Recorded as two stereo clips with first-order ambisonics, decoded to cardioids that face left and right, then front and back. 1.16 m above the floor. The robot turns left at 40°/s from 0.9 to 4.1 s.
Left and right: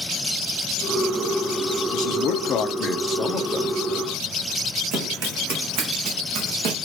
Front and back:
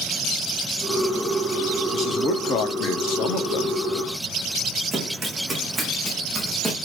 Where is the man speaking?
60° left, 1.9 m; by 3.8 s 15° right, 1.9 m.